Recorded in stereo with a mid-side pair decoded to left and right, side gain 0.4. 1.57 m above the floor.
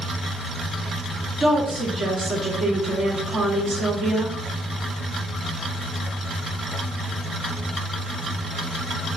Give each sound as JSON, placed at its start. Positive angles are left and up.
{"t": 1.4, "sound": "a woman speaking", "azimuth_deg": -65, "distance_m": 1.8}